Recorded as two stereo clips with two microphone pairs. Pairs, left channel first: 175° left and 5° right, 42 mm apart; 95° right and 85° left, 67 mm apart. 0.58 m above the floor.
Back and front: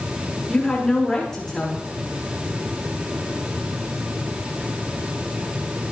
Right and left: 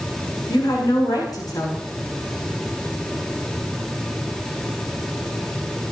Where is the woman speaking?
105° right, 8 m.